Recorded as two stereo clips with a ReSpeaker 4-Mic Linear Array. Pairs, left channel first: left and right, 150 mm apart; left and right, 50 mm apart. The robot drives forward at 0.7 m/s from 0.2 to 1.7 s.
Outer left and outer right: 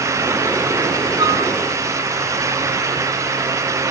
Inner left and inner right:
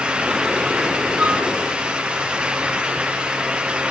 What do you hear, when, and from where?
1.2 s a flute: 25° right (ahead or behind), 3.5 m